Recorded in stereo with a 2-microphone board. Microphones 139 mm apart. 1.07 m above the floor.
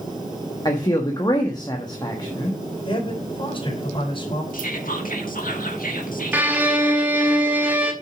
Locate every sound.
0.7 s a man speaking: 30° left (ahead or behind), 1.4 m
2.9 s a man speaking: 35° left (ahead or behind), 4.5 m
4.5 s whispering: 85° left, 2.0 m
6.3 s a violin: 15° right (ahead or behind), 1.6 m